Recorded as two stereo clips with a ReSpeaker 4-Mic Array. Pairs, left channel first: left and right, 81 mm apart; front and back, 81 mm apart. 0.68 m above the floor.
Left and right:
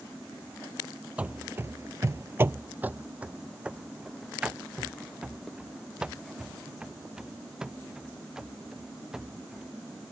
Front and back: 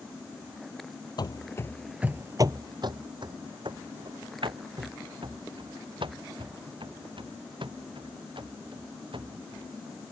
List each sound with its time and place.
1.2 s running footsteps: 20° right; by 9.7 s 175° right